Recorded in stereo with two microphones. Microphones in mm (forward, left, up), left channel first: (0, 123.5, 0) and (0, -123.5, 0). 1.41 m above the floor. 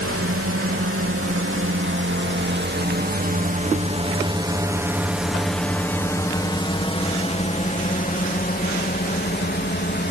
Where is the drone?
65° right (ahead or behind); by 10.1 s 45° left (ahead or behind).